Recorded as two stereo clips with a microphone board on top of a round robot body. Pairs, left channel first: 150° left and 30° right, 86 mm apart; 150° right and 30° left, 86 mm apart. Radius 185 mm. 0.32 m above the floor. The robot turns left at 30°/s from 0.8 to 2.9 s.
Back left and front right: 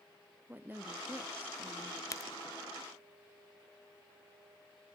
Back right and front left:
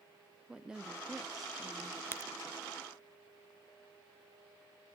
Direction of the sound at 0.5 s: 35° right.